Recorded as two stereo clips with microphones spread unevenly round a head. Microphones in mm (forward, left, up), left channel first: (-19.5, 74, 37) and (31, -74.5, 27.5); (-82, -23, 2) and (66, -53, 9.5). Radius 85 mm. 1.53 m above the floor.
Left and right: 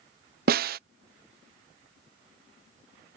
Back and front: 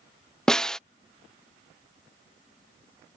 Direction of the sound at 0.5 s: 105° right.